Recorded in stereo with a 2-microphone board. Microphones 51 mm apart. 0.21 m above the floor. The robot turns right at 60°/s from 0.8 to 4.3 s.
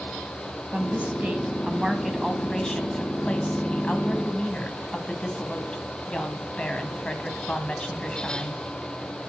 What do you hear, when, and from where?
0.7 s a woman speaking: 30° right (ahead or behind), 1.0 m; by 8.6 s 25° left (ahead or behind), 1.0 m